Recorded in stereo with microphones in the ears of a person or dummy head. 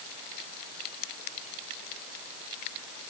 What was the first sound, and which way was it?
Only background noise.